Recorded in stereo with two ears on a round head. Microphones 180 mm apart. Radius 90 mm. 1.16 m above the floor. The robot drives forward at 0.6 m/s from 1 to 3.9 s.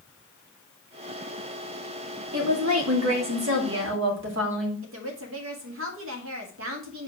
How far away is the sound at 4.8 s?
About 1.9 m.